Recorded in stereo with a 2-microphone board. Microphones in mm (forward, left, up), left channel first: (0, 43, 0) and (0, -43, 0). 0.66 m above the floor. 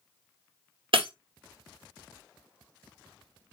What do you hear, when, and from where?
0.9 s breaking glass: 75° right (ahead or behind), 1.1 m